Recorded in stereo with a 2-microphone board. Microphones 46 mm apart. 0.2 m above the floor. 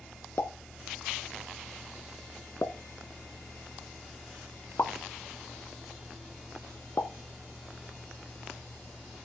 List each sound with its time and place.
0.4 s a pop: 60° left (ahead or behind), 1.1 m